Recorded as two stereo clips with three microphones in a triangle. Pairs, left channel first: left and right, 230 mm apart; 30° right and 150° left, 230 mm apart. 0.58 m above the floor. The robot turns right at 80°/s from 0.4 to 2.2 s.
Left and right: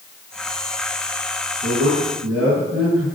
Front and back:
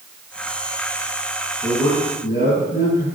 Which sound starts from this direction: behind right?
A man speaking, at 1.6 s.